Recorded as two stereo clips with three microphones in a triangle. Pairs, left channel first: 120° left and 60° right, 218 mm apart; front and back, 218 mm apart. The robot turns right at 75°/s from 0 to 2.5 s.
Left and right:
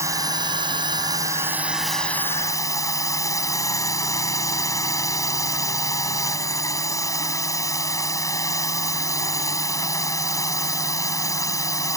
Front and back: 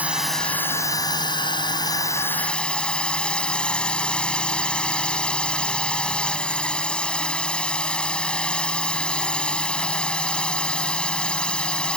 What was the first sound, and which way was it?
A drone, 110° right.